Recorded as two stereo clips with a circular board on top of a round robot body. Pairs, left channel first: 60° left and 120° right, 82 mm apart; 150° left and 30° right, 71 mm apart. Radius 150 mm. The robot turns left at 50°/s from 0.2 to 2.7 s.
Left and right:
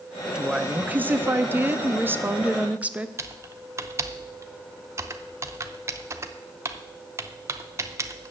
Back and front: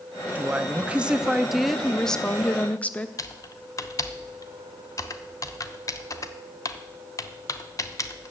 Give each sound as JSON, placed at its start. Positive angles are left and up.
{"t": 0.3, "sound": "a woman speaking", "azimuth_deg": -55, "distance_m": 0.9}
{"t": 3.2, "sound": "typing on a keyboard", "azimuth_deg": -175, "distance_m": 0.8}